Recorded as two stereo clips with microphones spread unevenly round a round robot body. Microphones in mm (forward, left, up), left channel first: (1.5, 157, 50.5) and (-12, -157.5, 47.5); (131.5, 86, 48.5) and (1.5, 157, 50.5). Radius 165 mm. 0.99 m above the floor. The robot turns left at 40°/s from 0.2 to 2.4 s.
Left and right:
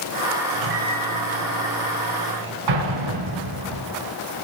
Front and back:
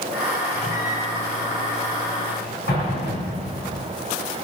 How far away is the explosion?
About 5 m.